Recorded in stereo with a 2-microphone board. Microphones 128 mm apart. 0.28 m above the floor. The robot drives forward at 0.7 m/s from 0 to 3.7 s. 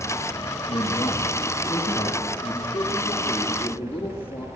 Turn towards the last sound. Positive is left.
turn(degrees=15)  # may be behind; listen again after turning